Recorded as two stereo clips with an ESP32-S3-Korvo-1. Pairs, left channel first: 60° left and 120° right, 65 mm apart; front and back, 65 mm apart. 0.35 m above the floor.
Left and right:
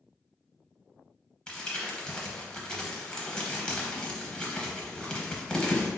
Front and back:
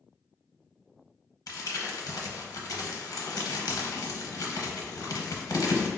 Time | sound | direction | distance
1.5 | crumpling | 15° right | 0.6 m